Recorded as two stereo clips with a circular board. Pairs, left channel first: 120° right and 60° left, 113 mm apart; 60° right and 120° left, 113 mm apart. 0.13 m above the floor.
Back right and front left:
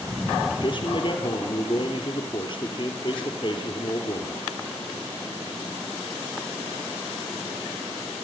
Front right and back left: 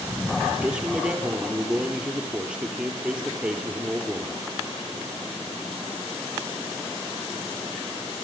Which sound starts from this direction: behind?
A man speaking, at 0.6 s.